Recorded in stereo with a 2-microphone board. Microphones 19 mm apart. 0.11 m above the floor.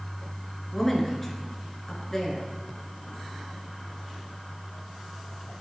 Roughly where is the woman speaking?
Centre.